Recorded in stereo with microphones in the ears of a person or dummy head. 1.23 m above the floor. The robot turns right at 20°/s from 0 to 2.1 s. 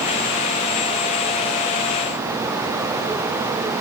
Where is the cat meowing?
I don't hear a cat meowing.